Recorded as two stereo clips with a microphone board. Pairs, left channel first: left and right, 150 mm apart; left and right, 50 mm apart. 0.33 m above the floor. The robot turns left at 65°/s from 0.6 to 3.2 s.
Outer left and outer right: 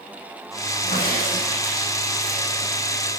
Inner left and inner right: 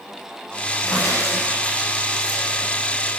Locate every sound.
0.8 s a crack: 90° left, 7.5 m; by 2.6 s 25° right, 7.5 m